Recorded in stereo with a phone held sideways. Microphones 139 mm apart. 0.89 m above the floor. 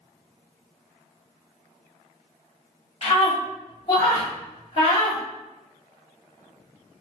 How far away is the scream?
About 1.4 m.